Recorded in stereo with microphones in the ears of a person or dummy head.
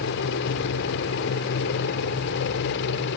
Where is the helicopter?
65° left (ahead or behind).